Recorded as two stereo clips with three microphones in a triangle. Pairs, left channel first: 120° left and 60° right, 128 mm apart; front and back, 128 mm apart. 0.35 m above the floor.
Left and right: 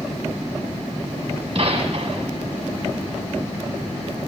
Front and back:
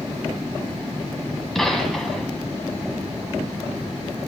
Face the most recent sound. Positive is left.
turn(degrees=-85)